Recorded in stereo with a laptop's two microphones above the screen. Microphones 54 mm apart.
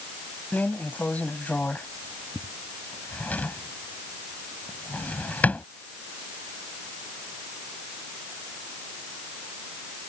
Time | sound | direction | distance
0.5 | a drawer | 25° left (ahead or behind) | ?